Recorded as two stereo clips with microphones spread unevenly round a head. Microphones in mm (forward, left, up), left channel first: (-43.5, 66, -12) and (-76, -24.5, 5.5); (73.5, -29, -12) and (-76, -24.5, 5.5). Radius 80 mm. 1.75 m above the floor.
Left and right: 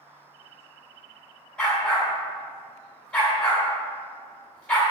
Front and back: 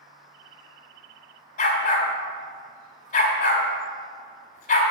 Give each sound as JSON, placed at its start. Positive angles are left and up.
{"t": 1.6, "sound": "a dog barking", "azimuth_deg": -25, "distance_m": 1.9}